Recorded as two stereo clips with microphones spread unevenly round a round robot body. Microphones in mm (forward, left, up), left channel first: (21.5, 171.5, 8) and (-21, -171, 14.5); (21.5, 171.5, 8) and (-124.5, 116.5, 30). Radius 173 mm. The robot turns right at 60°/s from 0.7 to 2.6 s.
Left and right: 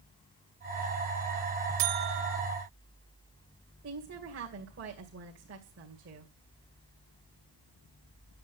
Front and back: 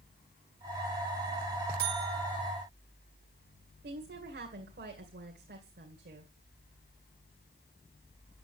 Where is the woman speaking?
155° right, 2.5 m.